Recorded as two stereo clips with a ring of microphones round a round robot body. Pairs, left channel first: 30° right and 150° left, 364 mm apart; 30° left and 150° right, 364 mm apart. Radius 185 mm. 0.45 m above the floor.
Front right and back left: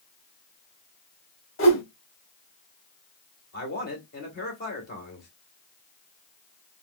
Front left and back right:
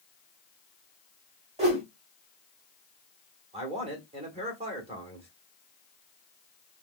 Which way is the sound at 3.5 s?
80° right.